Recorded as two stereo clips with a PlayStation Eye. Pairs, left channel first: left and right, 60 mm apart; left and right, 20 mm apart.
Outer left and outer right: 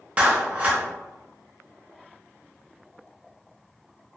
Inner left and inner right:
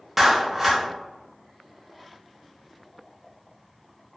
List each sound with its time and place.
0.2 s a clap: 25° right (ahead or behind), 0.7 m